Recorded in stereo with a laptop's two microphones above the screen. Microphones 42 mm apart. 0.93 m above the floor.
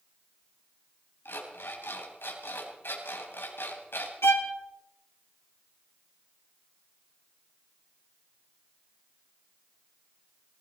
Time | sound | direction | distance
1.2 | an alarm clock | 70° left (ahead or behind) | 3.5 m
4.2 | a violin | 80° left | 1.6 m